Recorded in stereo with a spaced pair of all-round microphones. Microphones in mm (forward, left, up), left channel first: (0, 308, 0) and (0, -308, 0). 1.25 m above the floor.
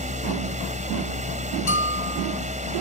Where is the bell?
55° left (ahead or behind).